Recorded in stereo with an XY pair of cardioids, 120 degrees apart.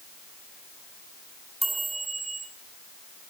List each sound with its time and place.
1.6 s a chime: 5° right, 3 m